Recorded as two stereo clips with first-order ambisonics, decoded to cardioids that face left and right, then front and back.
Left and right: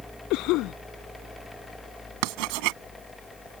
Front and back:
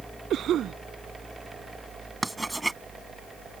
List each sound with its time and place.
0.3 s a cough: 125° left
2.2 s writing: 95° right